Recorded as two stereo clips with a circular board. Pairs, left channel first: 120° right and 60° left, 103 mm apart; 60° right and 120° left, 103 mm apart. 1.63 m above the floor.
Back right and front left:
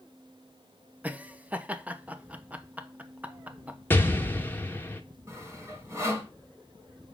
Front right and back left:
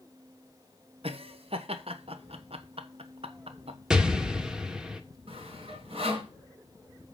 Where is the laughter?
135° left, 1.1 m.